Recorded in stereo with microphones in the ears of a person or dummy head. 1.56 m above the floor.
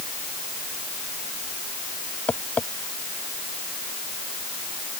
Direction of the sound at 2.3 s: 10° left (ahead or behind).